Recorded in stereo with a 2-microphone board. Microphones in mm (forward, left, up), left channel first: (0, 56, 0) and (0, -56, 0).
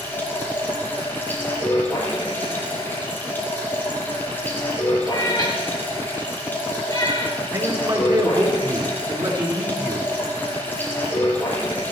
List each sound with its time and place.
0.0 s running water: 15° left (ahead or behind), 4 m
5.1 s a cat meowing: 35° left (ahead or behind), 3 m
7.5 s a man speaking: 40° right (ahead or behind), 4 m